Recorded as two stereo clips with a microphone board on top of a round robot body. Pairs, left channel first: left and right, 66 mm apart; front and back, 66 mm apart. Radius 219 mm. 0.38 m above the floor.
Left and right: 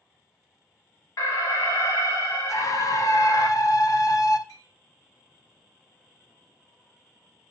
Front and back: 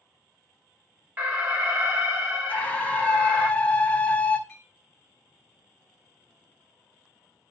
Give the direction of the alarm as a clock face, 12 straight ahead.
8 o'clock.